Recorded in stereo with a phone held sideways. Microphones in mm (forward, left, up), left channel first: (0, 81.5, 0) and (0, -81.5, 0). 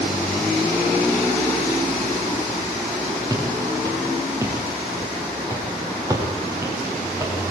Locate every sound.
3.3 s footsteps: 25° right (ahead or behind), 9.5 m; by 7.3 s 20° right (ahead or behind), 7 m